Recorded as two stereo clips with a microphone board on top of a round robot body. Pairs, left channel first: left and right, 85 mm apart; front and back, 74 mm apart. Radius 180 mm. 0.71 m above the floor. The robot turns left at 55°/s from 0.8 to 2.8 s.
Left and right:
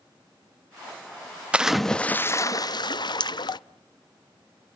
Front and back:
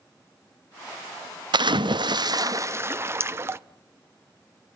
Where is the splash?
165° right, 0.6 m; by 3.6 s 125° left, 0.6 m.